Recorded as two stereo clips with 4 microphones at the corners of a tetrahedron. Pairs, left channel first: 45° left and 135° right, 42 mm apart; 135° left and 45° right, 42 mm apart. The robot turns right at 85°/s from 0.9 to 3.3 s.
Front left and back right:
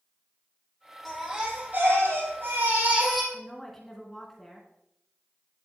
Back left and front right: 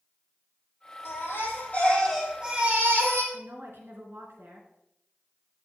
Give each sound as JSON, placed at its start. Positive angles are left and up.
{"t": 1.1, "sound": "a baby crying", "azimuth_deg": 125, "distance_m": 3.5}
{"t": 3.3, "sound": "a woman speaking", "azimuth_deg": -40, "distance_m": 3.0}